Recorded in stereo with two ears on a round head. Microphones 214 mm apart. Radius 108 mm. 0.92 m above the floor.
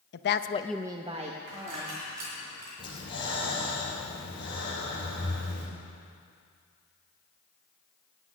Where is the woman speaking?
45° left (ahead or behind), 0.8 m; by 2.0 s 35° right (ahead or behind), 2 m.